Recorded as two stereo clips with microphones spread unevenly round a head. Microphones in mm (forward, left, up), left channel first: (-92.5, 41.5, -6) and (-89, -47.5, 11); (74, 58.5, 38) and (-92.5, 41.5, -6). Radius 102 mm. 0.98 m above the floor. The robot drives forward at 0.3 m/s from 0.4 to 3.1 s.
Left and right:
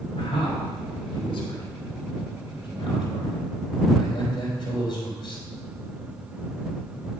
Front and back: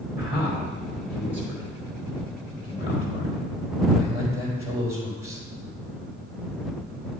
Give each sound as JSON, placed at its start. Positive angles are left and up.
{"t": 0.2, "sound": "a man speaking", "azimuth_deg": 115, "distance_m": 3.0}